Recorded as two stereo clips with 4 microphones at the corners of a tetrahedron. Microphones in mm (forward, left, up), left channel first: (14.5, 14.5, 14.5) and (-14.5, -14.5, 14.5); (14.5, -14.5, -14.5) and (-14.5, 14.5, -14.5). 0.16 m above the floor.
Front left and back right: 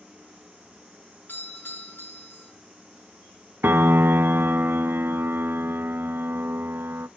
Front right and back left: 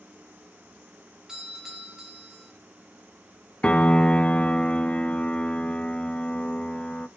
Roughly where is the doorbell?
Ahead left.